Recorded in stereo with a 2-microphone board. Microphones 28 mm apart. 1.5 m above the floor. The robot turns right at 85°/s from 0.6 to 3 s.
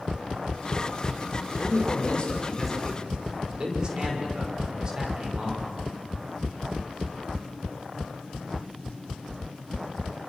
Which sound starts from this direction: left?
A man speaking, at 1.6 s.